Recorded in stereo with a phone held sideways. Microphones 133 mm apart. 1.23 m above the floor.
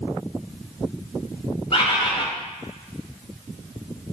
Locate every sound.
1.7 s a bird: 45° left (ahead or behind), 1.1 m